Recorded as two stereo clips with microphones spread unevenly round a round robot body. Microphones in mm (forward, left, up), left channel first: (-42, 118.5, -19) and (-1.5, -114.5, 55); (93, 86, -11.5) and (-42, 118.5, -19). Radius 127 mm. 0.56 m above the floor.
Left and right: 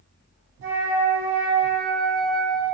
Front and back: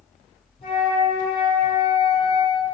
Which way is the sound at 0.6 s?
55° right.